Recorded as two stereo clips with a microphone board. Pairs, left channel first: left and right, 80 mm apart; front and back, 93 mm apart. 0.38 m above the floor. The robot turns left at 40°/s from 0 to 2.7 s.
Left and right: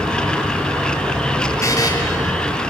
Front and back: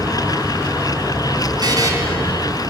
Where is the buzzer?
140° left, 4 m; by 1.9 s 125° left, 4 m.